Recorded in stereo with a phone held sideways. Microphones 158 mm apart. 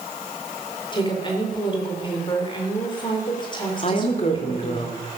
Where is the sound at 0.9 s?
30° left (ahead or behind), 3.5 m.